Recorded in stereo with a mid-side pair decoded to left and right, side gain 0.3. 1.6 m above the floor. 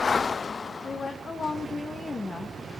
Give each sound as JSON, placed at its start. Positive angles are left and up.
{"t": 0.8, "sound": "a woman speaking", "azimuth_deg": 65, "distance_m": 3.0}